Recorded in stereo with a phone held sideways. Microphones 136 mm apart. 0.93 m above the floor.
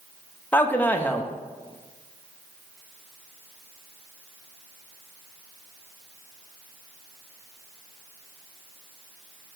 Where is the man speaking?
10° left (ahead or behind), 0.6 m.